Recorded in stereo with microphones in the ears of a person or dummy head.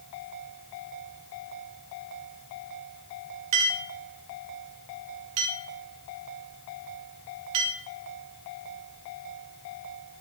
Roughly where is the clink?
Right.